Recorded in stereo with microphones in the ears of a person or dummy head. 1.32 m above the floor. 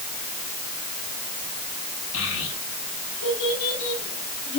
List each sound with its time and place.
2.1 s a child speaking: 80° left, 5.5 m